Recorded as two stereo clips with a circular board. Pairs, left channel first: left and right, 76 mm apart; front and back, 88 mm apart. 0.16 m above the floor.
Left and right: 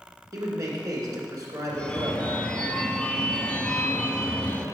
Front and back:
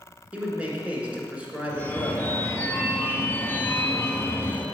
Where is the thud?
No thud in this recording.